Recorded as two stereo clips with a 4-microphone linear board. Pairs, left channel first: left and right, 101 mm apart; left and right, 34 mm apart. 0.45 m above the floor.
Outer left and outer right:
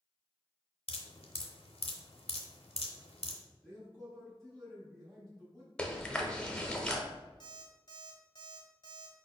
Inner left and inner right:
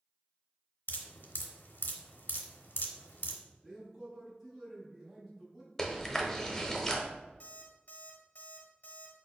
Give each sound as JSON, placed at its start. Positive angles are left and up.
{"t": 0.9, "sound": "dripping", "side_deg": 80, "distance_m": 0.7}
{"t": 3.6, "sound": "a man speaking", "side_deg": 5, "distance_m": 1.3}
{"t": 5.8, "sound": "chewing", "side_deg": 10, "distance_m": 0.7}
{"t": 7.4, "sound": "an alarm clock", "side_deg": 55, "distance_m": 1.3}